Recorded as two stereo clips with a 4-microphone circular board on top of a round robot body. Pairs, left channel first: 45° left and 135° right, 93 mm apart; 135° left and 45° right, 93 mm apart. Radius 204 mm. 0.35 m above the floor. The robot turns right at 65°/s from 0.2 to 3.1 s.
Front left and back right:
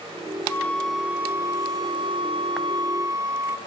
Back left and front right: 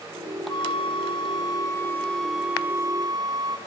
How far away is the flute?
About 2.5 m.